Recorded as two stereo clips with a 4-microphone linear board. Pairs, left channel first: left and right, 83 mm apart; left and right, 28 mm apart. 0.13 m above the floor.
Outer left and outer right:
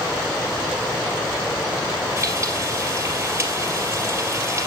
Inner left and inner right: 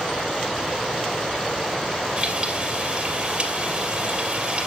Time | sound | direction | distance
2.2 | frying | 30° right (ahead or behind) | 2.5 m